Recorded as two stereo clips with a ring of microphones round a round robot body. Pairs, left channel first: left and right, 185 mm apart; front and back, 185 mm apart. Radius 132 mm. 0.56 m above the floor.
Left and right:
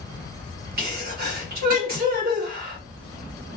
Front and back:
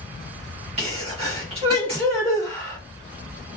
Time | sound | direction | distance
0.8 | a sneeze | 120° right | 1.2 m